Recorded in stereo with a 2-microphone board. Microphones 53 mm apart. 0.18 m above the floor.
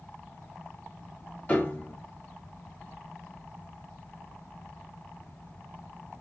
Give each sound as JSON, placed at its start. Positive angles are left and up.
{"t": 1.5, "sound": "a piano", "side_deg": 30, "distance_m": 0.9}